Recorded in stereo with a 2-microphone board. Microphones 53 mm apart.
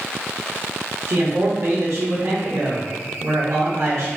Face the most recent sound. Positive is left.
turn(degrees=-60)  # may be behind; listen again after turning